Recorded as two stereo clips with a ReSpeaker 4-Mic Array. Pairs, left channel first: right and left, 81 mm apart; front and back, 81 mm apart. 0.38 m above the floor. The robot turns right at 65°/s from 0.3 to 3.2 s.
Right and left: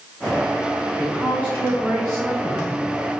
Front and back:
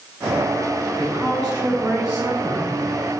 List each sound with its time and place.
1.0 s a woman speaking: 175° left, 1.6 m; by 2.8 s 65° right, 1.6 m